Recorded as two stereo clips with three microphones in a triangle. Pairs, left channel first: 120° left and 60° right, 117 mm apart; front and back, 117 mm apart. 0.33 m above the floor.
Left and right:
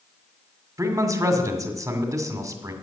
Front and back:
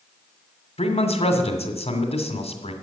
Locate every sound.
0.8 s a man speaking: 5° right, 2 m